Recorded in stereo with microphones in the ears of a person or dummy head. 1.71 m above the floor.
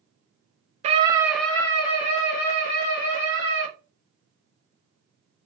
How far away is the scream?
About 0.6 m.